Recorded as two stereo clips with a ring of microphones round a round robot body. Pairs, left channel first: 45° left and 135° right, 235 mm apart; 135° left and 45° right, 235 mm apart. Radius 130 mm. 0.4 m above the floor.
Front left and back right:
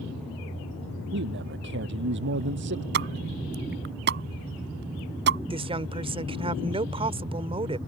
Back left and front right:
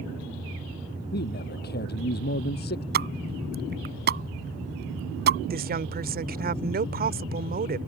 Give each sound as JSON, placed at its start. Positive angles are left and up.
{"t": 1.1, "sound": "a man speaking", "azimuth_deg": -175}
{"t": 2.9, "sound": "a pop", "azimuth_deg": -90}
{"t": 5.5, "sound": "a woman speaking", "azimuth_deg": -75}